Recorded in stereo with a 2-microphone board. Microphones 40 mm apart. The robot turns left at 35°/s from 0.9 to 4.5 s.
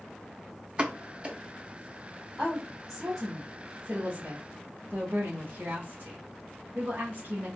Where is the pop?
25° right (ahead or behind), 0.6 m; by 1.4 s 30° right (ahead or behind), 0.6 m.